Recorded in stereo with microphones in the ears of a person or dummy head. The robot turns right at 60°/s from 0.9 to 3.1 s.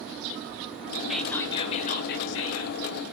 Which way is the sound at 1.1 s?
Straight ahead.